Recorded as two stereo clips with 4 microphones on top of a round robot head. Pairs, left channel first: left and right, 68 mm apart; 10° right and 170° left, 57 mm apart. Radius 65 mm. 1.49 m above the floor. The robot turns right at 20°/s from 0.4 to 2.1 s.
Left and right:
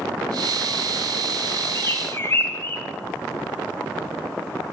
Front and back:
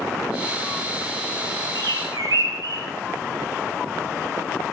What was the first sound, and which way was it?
A bird, 140° left.